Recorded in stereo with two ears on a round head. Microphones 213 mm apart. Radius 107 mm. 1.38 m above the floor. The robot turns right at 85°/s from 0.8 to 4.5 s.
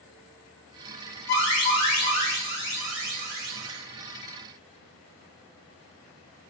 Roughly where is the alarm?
Ahead left.